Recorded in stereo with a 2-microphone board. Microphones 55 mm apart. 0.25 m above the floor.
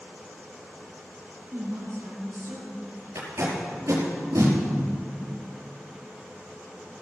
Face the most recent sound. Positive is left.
turn(degrees=-70)  # may be behind; listen again after turning